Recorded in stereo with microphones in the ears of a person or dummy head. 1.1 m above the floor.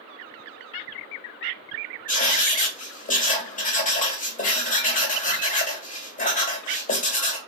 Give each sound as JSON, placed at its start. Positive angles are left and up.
{"t": 2.1, "sound": "writing", "side_deg": 35, "distance_m": 0.7}